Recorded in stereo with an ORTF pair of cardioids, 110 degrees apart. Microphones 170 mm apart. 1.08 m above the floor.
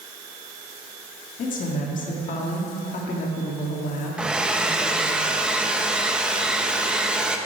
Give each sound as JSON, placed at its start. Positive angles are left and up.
{"t": 1.4, "sound": "a woman speaking", "azimuth_deg": 50, "distance_m": 1.8}
{"t": 4.2, "sound": "a hair dryer", "azimuth_deg": -5, "distance_m": 0.8}